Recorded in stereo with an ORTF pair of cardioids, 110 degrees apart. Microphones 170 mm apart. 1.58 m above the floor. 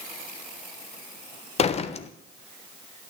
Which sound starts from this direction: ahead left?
A door slam, at 1.6 s.